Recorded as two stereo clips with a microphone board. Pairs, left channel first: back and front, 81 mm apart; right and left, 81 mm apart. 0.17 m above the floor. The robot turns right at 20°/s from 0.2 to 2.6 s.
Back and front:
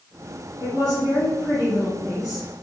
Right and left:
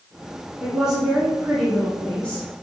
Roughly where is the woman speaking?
Behind.